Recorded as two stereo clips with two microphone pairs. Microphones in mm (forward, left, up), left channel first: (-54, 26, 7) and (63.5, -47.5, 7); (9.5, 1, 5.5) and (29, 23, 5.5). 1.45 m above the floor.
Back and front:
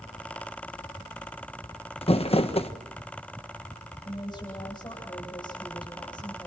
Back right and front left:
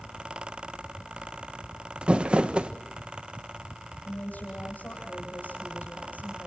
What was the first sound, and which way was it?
Crumpling, 105° left.